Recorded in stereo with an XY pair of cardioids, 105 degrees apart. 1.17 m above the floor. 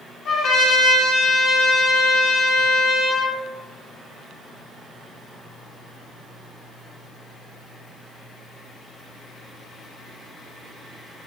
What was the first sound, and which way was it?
A trumpet, 65° left.